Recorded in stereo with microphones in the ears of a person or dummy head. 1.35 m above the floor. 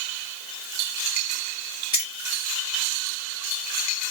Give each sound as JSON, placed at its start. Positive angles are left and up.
{"t": 1.9, "sound": "keys jangling", "side_deg": 20, "distance_m": 1.0}